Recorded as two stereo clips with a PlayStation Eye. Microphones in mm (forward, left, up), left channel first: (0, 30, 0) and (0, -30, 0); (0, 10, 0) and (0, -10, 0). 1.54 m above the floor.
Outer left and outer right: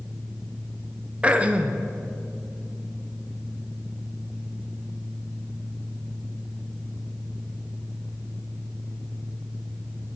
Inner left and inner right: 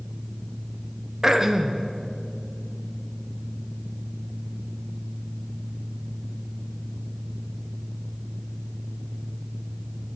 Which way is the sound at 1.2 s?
20° right (ahead or behind).